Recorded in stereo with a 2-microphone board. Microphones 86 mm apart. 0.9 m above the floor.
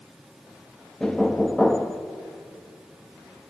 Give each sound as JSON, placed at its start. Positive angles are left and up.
{"t": 1.0, "sound": "knocking", "side_deg": 10, "distance_m": 0.9}